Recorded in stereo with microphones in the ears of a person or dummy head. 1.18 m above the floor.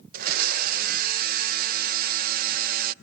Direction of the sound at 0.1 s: 50° right (ahead or behind).